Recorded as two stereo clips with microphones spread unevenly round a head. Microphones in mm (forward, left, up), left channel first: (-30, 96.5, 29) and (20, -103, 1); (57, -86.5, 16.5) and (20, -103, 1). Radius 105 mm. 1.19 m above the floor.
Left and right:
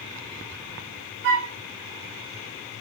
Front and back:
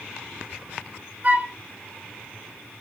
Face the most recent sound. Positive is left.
turn(degrees=-100)